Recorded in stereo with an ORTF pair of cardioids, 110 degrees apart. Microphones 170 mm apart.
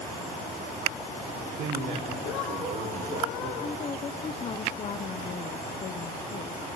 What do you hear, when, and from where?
1.3 s a man speaking: 65° right, 4.5 m
3.6 s a woman speaking: 40° left, 0.9 m